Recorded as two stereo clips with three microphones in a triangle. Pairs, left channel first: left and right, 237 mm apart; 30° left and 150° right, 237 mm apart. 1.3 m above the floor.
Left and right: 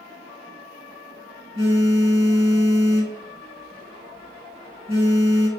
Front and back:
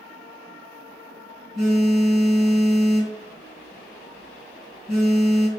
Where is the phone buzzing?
60° right, 3.5 m.